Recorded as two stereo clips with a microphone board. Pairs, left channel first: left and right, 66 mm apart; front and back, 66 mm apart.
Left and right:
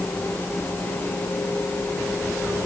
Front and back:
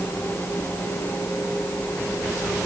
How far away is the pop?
I don't hear a pop.